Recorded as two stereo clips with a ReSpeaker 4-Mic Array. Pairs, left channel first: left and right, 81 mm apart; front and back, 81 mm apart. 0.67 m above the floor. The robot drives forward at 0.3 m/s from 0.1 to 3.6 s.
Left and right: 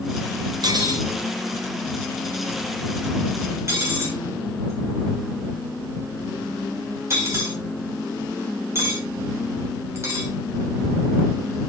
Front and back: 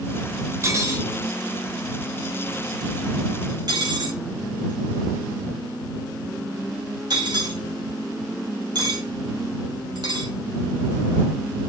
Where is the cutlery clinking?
125° right, 1.3 m; by 10.3 s 145° right, 1.9 m.